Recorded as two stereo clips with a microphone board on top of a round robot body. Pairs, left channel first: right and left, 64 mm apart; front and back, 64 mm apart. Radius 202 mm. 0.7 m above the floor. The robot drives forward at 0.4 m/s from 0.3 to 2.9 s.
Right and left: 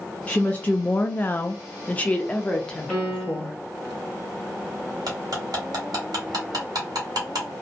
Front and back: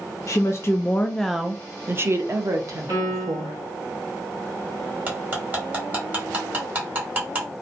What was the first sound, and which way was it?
A woman speaking, 25° right.